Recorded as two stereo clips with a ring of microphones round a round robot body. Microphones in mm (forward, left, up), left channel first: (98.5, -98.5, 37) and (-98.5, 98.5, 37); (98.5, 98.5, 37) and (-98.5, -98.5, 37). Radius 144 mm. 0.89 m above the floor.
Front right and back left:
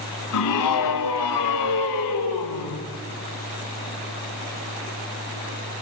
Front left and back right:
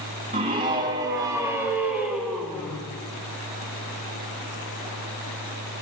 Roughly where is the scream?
Ahead right.